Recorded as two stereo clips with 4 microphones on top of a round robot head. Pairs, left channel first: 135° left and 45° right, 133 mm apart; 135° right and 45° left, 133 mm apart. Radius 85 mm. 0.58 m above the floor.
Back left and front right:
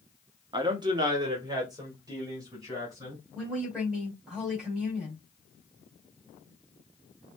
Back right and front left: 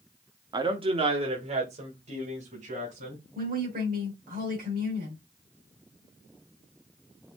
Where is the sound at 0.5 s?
Straight ahead, 0.9 m; by 3.2 s 15° left, 3 m.